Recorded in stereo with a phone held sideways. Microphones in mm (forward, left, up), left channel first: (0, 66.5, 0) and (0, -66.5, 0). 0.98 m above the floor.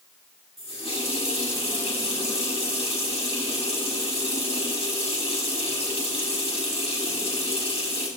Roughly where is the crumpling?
No crumpling in this recording.